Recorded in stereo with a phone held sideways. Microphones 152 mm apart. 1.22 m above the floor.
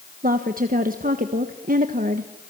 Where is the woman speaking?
70° right (ahead or behind), 1.4 m.